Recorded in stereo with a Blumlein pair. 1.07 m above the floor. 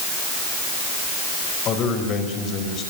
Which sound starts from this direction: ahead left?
A man speaking, at 1.6 s.